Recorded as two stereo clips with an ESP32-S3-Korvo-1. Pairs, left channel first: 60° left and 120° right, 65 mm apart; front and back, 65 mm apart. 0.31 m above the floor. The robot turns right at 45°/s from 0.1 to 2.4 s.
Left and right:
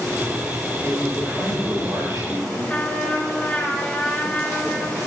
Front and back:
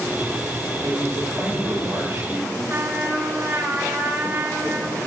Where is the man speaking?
155° left, 4 m; by 2.6 s 135° right, 4 m.